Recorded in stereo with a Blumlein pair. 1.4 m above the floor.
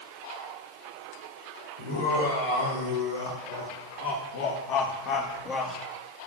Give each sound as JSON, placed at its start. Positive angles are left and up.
{"t": 1.8, "sound": "laughter", "azimuth_deg": 70, "distance_m": 5.0}